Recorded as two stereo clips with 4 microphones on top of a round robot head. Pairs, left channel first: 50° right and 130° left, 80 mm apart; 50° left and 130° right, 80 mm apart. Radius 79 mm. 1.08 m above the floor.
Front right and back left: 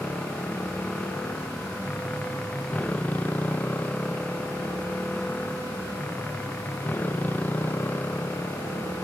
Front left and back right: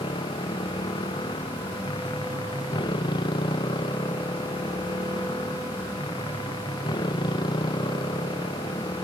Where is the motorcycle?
25° left; by 9.0 s 15° left.